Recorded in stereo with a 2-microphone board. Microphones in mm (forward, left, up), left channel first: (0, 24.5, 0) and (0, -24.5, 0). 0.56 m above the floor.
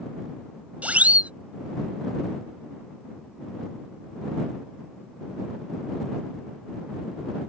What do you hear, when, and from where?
0.8 s a siren: 30° right (ahead or behind)